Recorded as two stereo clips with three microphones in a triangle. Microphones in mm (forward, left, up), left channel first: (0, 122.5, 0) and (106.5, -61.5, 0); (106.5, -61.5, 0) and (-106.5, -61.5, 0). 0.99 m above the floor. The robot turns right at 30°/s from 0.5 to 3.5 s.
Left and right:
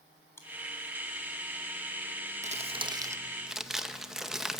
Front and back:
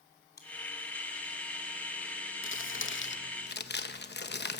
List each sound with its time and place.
0.4 s chewing: 40° left, 2.5 m
2.4 s crumpling: 5° right, 0.9 m; by 4.6 s 30° left, 0.9 m